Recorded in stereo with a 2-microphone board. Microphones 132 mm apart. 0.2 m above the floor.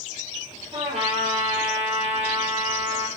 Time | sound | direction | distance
0.7 | a trumpet | 55° right (ahead or behind) | 4 m